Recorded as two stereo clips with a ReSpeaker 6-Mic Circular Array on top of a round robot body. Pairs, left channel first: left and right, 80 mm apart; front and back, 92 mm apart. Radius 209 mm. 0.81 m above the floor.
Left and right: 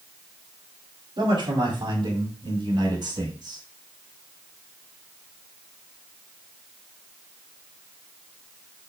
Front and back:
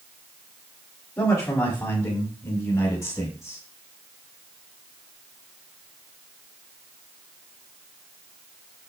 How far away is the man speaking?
About 4.5 m.